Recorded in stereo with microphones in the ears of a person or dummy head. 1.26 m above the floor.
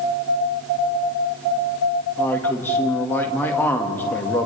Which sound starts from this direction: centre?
A man speaking, at 2.2 s.